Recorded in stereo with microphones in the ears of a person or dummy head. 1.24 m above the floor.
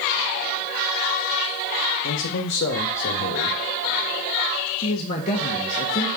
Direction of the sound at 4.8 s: 35° left (ahead or behind).